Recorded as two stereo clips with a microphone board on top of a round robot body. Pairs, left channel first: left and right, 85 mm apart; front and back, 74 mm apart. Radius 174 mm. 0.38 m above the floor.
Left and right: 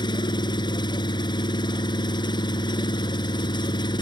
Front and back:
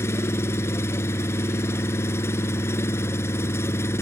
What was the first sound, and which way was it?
An engine running, 55° left.